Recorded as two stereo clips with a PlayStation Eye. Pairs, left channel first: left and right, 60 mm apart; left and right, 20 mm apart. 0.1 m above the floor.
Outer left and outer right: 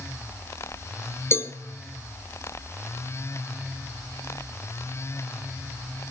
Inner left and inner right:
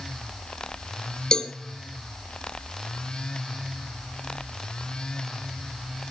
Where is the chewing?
I don't hear chewing.